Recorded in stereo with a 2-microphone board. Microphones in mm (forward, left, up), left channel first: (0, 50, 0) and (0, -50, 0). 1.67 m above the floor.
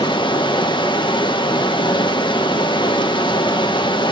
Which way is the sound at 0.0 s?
55° left (ahead or behind).